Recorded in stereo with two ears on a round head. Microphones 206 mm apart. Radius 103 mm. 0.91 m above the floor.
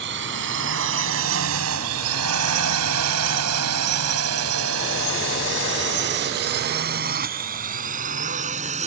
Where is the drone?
50° right (ahead or behind); by 8.9 s 30° right (ahead or behind).